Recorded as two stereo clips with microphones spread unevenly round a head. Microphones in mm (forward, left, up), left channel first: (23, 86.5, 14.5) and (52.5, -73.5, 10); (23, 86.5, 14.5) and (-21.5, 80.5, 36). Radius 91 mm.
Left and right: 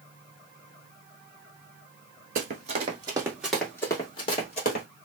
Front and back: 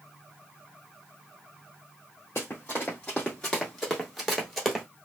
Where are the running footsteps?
80° right, 1.2 m; by 4.8 s 125° left, 1.4 m.